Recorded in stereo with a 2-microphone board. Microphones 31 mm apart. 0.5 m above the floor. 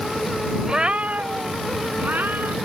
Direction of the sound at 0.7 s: 20° right (ahead or behind).